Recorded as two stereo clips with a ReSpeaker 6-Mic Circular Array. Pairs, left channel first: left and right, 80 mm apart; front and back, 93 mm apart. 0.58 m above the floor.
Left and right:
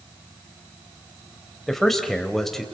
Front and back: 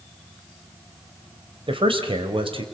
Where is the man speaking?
175° left, 3 m.